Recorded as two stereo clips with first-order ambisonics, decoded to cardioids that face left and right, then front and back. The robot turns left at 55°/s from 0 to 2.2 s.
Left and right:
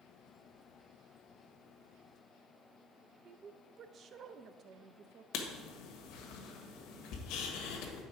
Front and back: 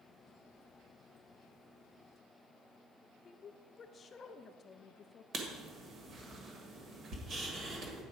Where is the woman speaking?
50° right, 0.5 m.